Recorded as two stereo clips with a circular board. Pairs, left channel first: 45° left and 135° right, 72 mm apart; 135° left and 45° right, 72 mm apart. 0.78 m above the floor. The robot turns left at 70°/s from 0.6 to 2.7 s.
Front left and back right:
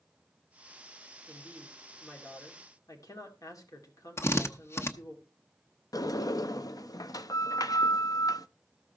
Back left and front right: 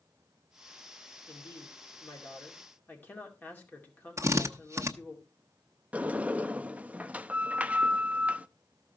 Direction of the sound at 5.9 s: 25° left.